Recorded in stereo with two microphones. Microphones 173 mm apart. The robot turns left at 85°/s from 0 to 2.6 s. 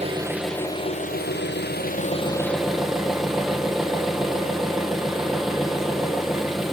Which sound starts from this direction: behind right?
An engine running, at 0.0 s.